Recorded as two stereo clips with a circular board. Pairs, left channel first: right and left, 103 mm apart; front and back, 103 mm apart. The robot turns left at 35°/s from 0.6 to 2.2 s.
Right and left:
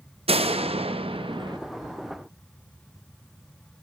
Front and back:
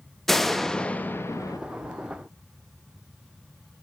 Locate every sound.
0.3 s a door slam: 90° left, 0.7 m; by 1.6 s 55° left, 0.7 m